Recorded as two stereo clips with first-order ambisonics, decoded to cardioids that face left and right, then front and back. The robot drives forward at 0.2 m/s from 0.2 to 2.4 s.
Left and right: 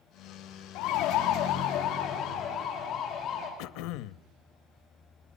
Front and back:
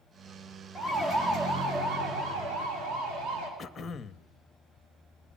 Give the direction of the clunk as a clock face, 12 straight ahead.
I don't hear a clunk.